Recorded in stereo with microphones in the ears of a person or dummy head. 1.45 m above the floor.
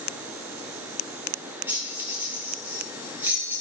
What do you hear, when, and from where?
1.7 s keys jangling: 15° right (ahead or behind), 0.9 m